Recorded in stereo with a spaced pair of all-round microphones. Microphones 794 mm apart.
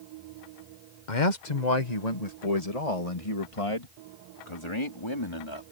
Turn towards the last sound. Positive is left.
turn(degrees=35)  # may be behind; listen again after turning